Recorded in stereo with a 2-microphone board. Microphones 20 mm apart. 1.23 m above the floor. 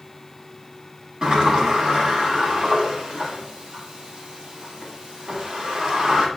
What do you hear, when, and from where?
1.2 s a sliding door: 40° right (ahead or behind), 3 m